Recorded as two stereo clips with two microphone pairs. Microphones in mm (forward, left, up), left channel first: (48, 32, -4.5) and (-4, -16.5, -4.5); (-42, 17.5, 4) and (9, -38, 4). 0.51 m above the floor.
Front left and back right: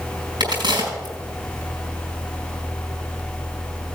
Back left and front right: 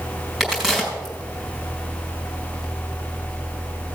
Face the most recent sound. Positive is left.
turn(degrees=-130)